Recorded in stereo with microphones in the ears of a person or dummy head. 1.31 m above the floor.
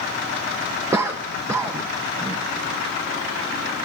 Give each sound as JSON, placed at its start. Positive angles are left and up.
{"t": 0.9, "sound": "a cough", "side_deg": -15, "distance_m": 0.6}